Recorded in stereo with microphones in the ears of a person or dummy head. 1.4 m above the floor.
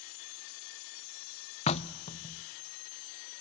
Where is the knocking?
40° left (ahead or behind), 0.6 m.